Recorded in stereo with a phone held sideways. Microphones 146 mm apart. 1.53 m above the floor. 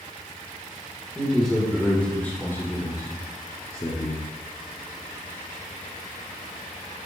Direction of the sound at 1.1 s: 5° right (ahead or behind).